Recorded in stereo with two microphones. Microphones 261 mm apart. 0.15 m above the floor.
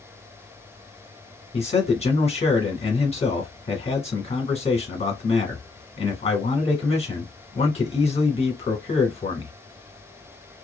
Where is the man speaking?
20° left (ahead or behind), 1.2 m.